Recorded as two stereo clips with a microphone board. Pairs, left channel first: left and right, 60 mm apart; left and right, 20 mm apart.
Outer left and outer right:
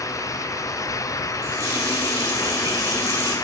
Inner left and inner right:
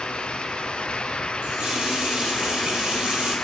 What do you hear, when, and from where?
1.4 s a running tap: 80° right, 1.8 m